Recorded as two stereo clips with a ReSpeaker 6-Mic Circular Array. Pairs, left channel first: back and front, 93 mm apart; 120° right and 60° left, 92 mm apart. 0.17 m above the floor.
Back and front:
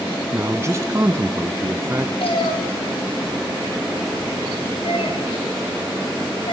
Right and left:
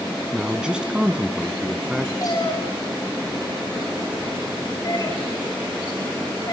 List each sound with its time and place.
0.3 s a man speaking: 15° right, 1.5 m
2.2 s a cat meowing: 170° right, 8.5 m